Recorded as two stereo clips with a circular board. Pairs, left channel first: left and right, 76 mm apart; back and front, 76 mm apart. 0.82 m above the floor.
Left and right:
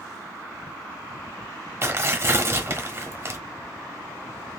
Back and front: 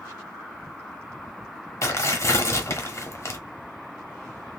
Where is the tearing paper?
140° right, 0.9 m.